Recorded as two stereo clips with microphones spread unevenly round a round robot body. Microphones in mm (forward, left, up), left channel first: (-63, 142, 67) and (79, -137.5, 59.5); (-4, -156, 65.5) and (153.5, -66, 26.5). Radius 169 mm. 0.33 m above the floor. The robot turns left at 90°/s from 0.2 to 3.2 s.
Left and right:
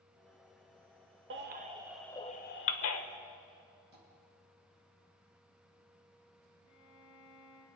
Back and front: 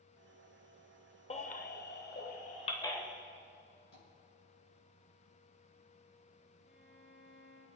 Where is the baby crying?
90° right, 1.1 m; by 3.0 s 115° left, 1.1 m.